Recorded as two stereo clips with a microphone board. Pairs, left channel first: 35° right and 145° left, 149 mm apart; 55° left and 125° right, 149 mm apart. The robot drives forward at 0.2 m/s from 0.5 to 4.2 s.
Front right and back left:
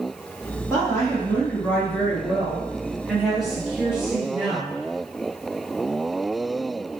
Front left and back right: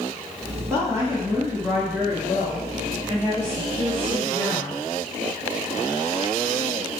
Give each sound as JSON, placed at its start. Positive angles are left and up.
{"t": 0.7, "sound": "a woman speaking", "azimuth_deg": -80, "distance_m": 1.1}